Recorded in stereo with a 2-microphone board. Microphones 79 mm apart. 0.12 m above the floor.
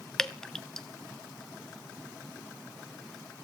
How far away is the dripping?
About 0.6 m.